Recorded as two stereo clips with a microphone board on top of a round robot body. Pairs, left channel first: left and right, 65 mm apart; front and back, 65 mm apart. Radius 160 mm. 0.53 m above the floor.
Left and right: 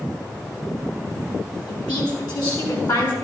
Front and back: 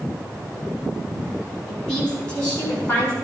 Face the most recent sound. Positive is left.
turn(degrees=65)